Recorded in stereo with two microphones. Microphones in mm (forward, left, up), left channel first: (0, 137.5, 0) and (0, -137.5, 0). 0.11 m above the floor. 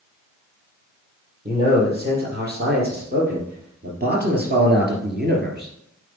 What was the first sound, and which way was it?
A man speaking, 35° right (ahead or behind).